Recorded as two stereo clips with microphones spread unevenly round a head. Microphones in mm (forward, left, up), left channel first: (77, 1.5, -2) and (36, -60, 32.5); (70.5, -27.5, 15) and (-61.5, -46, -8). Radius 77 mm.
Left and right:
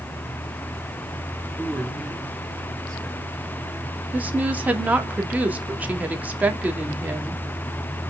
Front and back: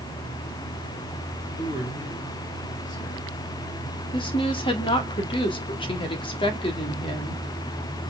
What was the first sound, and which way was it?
A man speaking, 20° right.